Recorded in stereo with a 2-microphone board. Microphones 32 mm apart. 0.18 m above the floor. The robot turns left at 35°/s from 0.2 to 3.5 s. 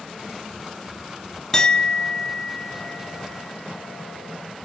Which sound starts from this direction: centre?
A clink, at 1.5 s.